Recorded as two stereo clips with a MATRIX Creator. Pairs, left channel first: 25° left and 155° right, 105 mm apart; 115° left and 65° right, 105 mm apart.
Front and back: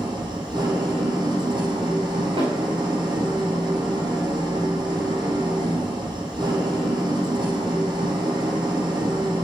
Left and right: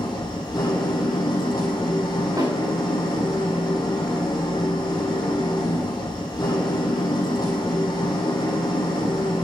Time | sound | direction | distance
0.0 | an engine running | 160° left | 5 m
2.4 | a snare drum | 125° right | 7 m